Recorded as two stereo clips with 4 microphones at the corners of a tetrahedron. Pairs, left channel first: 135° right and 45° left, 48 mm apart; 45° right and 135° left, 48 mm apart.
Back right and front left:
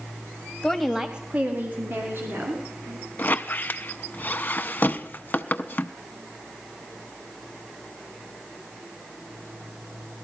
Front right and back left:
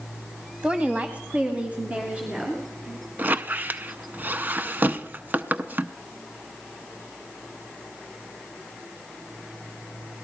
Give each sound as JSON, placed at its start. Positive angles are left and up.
{"t": 0.6, "sound": "a woman speaking", "azimuth_deg": 170, "distance_m": 1.1}
{"t": 3.2, "sound": "a squeak", "azimuth_deg": 180, "distance_m": 0.6}